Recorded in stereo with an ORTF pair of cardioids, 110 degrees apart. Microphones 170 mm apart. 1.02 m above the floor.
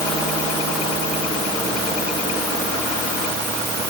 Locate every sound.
Only background noise.